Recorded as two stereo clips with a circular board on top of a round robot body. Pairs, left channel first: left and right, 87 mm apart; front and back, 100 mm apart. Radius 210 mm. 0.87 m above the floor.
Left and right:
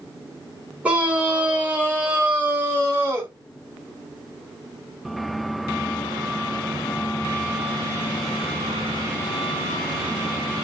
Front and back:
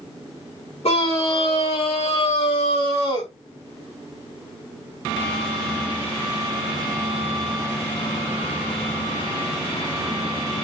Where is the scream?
15° right, 6 m; by 3.3 s 25° right, 5.5 m.